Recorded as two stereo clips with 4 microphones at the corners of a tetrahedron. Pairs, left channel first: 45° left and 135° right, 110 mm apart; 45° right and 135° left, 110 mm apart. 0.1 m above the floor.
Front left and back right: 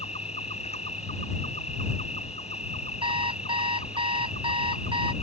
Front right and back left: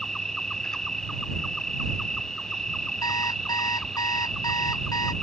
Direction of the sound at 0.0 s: 40° left.